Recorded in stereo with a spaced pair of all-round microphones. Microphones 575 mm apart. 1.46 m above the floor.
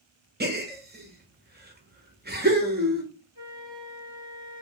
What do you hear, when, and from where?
0.4 s a gasp: 15° right (ahead or behind), 0.6 m
3.4 s a flute: 55° left (ahead or behind), 1.7 m